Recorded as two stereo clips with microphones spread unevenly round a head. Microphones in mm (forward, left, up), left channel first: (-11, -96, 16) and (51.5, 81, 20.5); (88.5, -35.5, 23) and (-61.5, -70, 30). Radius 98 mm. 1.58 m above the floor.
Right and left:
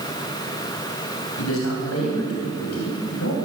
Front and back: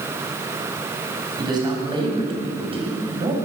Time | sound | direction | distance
1.4 | a man speaking | 105° right | 8.5 m